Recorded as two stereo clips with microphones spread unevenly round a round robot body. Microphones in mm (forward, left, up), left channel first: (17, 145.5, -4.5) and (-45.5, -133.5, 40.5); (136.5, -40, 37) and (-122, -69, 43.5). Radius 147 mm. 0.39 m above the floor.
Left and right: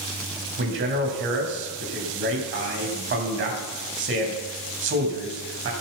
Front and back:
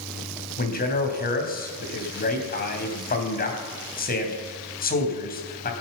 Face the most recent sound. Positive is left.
turn(degrees=-45)